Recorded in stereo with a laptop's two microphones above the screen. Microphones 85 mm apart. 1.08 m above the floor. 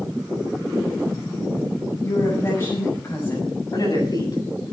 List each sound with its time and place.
2.0 s a woman speaking: 35° left (ahead or behind), 5.5 m
3.7 s a man speaking: 50° left (ahead or behind), 8 m